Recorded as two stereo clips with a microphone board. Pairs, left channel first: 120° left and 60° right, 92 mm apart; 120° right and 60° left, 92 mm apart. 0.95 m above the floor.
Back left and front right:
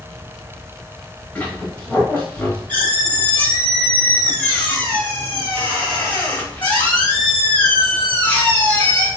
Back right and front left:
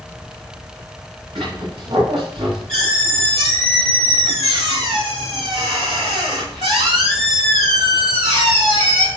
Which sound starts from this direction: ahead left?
A squeak, at 1.4 s.